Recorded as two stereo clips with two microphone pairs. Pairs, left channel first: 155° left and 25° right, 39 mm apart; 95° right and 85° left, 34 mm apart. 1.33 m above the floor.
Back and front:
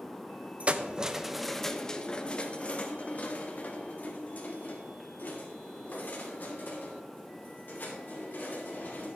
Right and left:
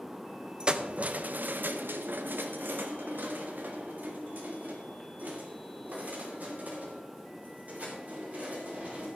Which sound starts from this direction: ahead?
Keys jangling, at 0.6 s.